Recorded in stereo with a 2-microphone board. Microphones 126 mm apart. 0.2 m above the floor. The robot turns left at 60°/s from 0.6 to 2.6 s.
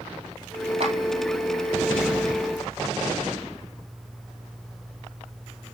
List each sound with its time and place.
0.8 s a clap: 50° right (ahead or behind), 4 m; by 0.9 s 40° right (ahead or behind), 4 m